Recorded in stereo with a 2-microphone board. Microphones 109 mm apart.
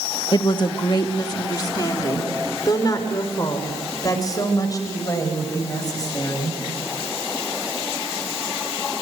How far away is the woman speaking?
About 1.4 m.